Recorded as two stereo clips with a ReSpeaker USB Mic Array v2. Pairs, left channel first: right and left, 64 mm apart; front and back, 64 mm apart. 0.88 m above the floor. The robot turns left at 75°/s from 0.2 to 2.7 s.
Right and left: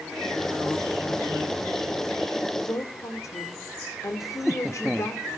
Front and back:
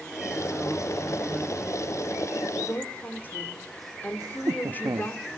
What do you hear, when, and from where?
2.6 s a woman speaking: 50° right, 2.5 m; by 5.2 s 60° right, 2.5 m
4.2 s laughter: straight behind, 0.9 m